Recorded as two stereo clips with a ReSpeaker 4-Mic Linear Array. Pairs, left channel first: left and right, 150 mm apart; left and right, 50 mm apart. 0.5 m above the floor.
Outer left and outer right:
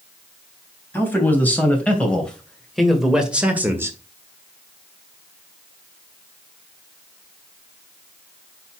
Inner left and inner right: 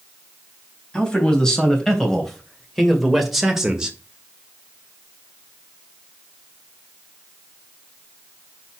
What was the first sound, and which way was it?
A man speaking, 15° left (ahead or behind).